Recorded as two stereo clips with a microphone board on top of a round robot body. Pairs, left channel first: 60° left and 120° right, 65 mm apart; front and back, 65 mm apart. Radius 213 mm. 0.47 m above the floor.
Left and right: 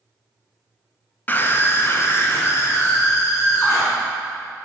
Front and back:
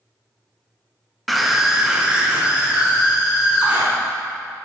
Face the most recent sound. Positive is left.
turn(degrees=110)